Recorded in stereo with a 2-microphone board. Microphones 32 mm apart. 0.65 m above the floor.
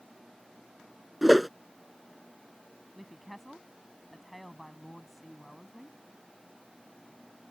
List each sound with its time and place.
1.2 s a whoosh: 5° right (ahead or behind)
3.0 s a woman speaking: centre (ahead or behind)